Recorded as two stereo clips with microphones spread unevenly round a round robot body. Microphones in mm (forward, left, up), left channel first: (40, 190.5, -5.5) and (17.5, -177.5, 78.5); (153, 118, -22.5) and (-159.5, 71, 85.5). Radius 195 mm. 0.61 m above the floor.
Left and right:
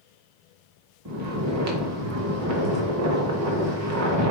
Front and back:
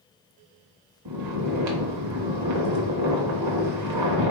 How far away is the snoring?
About 0.6 m.